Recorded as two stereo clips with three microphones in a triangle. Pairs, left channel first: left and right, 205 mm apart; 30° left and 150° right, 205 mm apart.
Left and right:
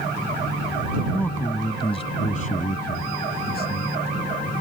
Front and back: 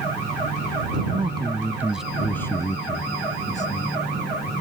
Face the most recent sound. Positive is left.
turn(degrees=65)